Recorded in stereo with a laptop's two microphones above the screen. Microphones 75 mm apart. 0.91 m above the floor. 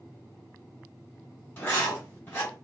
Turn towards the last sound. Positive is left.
turn(degrees=35)  # may be behind; listen again after turning